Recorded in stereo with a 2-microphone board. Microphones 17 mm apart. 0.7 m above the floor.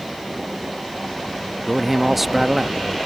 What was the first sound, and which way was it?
A man speaking, 15° right (ahead or behind).